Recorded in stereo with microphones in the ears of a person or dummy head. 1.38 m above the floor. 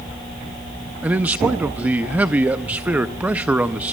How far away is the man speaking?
About 0.5 m.